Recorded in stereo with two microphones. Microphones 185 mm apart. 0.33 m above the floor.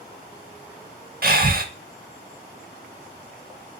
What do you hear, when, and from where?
1.2 s breathing: 55° right (ahead or behind), 0.5 m